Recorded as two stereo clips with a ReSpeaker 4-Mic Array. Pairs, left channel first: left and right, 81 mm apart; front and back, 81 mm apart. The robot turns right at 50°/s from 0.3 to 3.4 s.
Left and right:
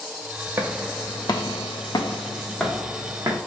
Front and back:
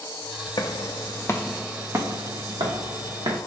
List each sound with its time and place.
0.6 s footsteps: 25° right, 0.6 m; by 3.4 s 140° right, 1.4 m